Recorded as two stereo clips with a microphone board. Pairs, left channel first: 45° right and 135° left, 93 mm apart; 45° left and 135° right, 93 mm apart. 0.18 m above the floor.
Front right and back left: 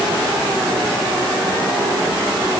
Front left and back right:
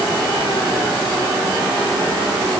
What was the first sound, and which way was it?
Only background noise.